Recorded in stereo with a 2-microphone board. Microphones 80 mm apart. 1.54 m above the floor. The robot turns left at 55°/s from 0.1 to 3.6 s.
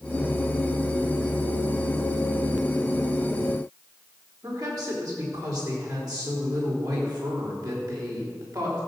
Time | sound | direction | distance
4.4 | a woman speaking | 55° right (ahead or behind) | 4 m